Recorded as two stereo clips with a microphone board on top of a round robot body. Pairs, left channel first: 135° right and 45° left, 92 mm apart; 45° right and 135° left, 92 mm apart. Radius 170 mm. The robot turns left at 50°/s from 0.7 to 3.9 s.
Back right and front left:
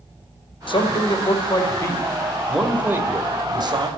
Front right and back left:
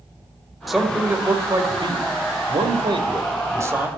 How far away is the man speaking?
About 2 m.